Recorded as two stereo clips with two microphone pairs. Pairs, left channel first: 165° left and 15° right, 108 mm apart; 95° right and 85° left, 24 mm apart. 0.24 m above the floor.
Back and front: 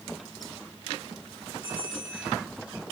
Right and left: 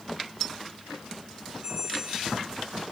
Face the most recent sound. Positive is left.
turn(degrees=130)